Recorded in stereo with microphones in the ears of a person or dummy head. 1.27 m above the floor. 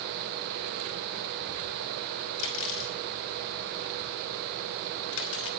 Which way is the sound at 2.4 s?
75° left (ahead or behind).